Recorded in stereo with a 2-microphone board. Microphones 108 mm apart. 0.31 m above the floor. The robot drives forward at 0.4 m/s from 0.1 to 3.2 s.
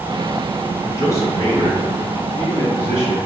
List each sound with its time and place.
0.9 s a man speaking: 30° left (ahead or behind), 1.8 m; by 3.2 s 20° left (ahead or behind), 2.5 m